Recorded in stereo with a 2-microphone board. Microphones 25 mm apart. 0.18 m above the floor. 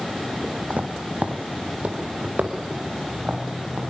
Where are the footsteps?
80° right, 3.5 m; by 3.8 s 70° right (ahead or behind), 6 m.